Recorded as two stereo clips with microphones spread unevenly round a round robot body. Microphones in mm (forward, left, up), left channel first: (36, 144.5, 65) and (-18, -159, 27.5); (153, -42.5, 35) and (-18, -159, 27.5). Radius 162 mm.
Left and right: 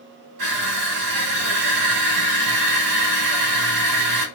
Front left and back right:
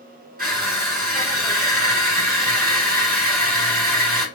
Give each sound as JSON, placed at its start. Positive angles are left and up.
{"t": 0.4, "sound": "crushing", "azimuth_deg": -100, "distance_m": 3.0}